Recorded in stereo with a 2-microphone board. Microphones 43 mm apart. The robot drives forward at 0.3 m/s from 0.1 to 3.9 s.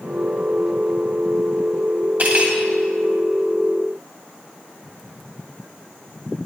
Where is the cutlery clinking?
50° right (ahead or behind), 2.5 m.